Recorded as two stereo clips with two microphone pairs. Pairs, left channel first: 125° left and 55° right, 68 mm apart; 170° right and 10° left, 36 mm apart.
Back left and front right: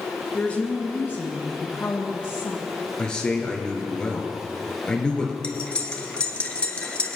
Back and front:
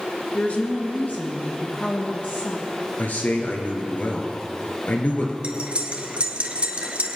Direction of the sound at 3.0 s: 160° right.